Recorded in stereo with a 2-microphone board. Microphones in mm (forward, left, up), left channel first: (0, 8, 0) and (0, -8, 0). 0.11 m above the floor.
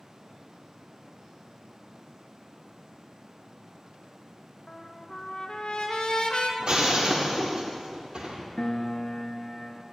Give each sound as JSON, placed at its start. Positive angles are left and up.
{"t": 4.7, "sound": "a trumpet", "side_deg": 65, "distance_m": 1.0}
{"t": 6.6, "sound": "breaking glass", "side_deg": -70, "distance_m": 1.6}
{"t": 8.6, "sound": "a piano", "side_deg": 40, "distance_m": 0.6}